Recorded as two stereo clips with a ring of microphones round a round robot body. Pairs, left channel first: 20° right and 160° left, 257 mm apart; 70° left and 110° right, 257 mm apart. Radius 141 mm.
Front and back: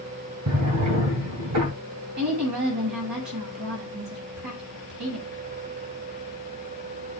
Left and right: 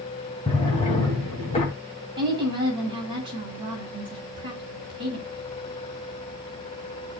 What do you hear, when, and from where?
0.5 s a drawer: 135° left, 2.5 m
2.2 s a woman speaking: 175° left, 8 m